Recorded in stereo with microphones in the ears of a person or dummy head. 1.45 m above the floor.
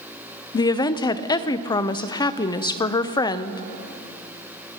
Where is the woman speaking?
25° left (ahead or behind), 0.5 m.